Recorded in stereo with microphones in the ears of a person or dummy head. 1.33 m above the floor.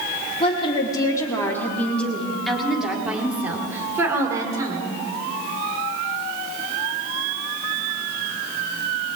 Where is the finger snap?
No finger snap in this recording.